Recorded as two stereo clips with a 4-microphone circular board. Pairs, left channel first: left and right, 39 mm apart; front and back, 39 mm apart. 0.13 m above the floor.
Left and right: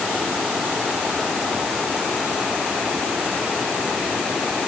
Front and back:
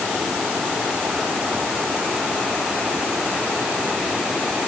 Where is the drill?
I don't hear a drill.